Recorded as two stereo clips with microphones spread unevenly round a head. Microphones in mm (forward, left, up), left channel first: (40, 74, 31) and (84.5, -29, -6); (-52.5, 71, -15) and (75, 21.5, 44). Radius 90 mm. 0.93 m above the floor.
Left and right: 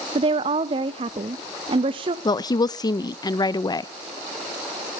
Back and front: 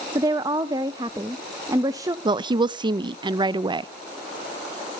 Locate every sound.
0.1 s a woman speaking: 100° right, 0.5 m
2.2 s a woman speaking: 55° left, 0.5 m